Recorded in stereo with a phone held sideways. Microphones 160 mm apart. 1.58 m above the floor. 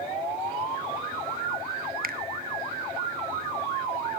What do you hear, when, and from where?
2.0 s a finger snap: 65° right (ahead or behind), 1.1 m